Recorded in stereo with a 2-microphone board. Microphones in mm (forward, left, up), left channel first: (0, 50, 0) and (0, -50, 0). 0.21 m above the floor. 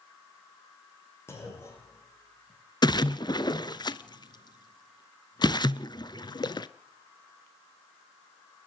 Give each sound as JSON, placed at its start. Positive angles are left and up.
{"t": 1.3, "sound": "a clunk", "side_deg": 25, "distance_m": 7.5}
{"t": 2.8, "sound": "a splash", "side_deg": 45, "distance_m": 0.8}